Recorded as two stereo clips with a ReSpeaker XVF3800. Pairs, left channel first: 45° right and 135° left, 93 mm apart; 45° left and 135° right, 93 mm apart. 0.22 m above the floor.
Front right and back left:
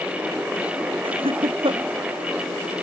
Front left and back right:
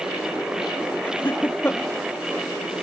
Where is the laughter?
115° left.